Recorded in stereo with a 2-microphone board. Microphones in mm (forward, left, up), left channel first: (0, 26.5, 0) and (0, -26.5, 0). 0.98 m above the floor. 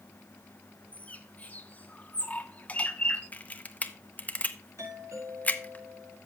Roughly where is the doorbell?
Right.